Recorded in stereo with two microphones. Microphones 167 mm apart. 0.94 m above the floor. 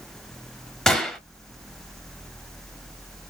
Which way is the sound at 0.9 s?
5° left (ahead or behind).